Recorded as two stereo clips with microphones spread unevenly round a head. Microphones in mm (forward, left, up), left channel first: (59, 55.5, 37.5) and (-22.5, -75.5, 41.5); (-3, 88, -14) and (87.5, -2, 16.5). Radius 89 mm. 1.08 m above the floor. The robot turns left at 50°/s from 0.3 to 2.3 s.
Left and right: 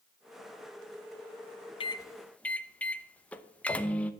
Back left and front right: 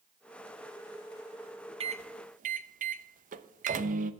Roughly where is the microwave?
Ahead.